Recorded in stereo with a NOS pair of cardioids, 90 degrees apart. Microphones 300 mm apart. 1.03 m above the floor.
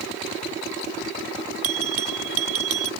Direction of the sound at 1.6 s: 50° right.